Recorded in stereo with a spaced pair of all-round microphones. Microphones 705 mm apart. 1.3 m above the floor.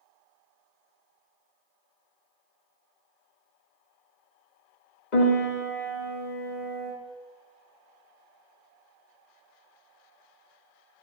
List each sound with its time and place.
5.1 s a piano: 80° left, 2 m